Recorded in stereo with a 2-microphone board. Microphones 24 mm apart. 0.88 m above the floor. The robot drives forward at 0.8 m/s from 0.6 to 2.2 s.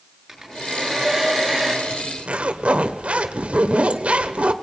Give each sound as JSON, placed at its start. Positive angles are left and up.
{"t": 0.3, "sound": "a hair dryer", "side_deg": -10, "distance_m": 9.5}
{"t": 1.9, "sound": "a zipper", "side_deg": -75, "distance_m": 1.5}